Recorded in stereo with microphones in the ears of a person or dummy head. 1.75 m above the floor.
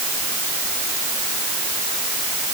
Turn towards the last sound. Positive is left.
No sound to turn to.